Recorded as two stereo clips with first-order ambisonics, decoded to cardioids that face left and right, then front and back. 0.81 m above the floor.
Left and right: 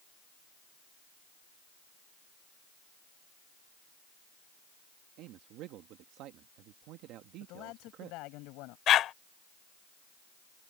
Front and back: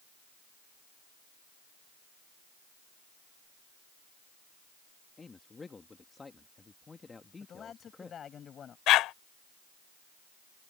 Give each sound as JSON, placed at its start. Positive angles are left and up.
{"t": 5.2, "sound": "a man speaking", "azimuth_deg": -75}
{"t": 7.4, "sound": "a man speaking", "azimuth_deg": 65}
{"t": 8.9, "sound": "a dog barking", "azimuth_deg": 40}